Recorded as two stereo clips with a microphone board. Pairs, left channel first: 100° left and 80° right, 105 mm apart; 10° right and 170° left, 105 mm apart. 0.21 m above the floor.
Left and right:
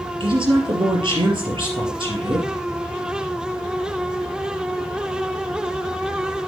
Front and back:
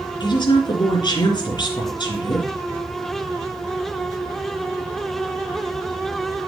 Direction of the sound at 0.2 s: 50° right.